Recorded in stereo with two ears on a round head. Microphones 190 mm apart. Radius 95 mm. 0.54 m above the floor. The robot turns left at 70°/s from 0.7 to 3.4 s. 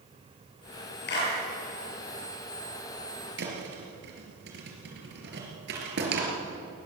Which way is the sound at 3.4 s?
55° right (ahead or behind).